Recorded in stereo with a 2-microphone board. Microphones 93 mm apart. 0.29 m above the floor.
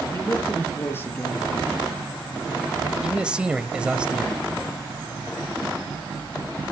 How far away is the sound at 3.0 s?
About 1.1 m.